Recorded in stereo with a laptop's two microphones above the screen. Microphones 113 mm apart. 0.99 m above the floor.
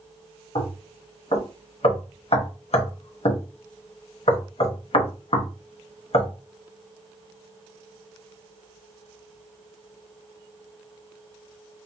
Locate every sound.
0.6 s knocking: 65° left (ahead or behind), 0.8 m